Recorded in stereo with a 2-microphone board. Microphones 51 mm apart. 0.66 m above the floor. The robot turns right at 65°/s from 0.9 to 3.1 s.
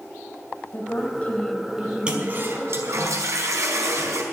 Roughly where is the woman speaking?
Behind left.